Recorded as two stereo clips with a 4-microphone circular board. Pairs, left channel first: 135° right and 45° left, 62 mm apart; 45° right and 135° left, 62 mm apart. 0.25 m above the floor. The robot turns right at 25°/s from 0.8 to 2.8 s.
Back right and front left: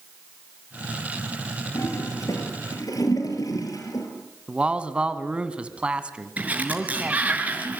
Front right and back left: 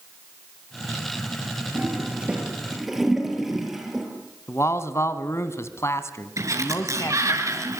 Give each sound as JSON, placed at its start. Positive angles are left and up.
{"t": 1.8, "sound": "a toilet flushing", "azimuth_deg": -165, "distance_m": 6.0}
{"t": 4.5, "sound": "a man speaking", "azimuth_deg": -25, "distance_m": 2.0}
{"t": 6.4, "sound": "a sliding door", "azimuth_deg": 110, "distance_m": 4.5}